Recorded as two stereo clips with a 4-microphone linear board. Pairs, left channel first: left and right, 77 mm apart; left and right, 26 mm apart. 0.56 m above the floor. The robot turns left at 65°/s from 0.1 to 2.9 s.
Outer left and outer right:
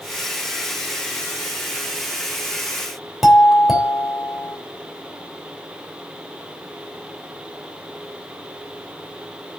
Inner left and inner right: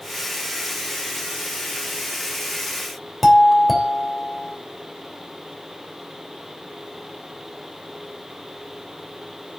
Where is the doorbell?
5° right (ahead or behind), 3 m.